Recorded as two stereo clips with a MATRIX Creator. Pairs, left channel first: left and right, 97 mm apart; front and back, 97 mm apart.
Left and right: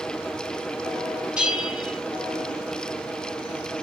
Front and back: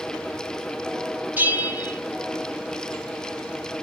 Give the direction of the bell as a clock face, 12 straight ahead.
5 o'clock.